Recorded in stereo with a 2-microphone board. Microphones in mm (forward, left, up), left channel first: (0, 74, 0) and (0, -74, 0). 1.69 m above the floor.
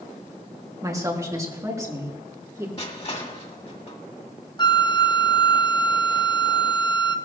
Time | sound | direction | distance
0.8 | a woman speaking | 20° right (ahead or behind) | 2.5 m
2.8 | crushing | 45° left (ahead or behind) | 1.8 m
4.6 | a flute | 30° left (ahead or behind) | 0.7 m